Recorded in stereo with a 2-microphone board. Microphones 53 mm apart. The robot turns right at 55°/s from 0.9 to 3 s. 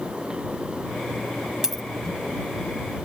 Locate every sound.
1.6 s a dropped coin: 10° right (ahead or behind); by 1.8 s centre (ahead or behind)